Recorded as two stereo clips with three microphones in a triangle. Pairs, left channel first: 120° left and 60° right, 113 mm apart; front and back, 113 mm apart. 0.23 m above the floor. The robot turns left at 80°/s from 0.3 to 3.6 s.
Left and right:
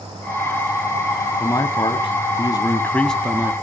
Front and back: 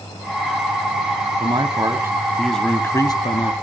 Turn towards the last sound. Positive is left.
turn(degrees=0)